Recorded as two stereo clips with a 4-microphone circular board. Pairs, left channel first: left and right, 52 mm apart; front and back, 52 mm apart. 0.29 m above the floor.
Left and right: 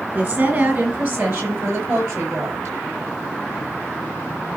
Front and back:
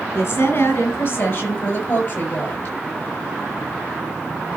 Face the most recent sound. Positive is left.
turn(degrees=-55)